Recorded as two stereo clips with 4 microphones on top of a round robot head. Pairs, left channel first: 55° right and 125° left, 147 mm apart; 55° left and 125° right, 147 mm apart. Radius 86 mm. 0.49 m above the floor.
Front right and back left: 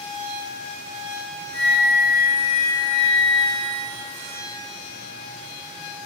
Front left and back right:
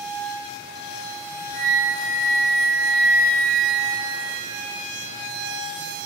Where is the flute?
5° left, 0.7 m.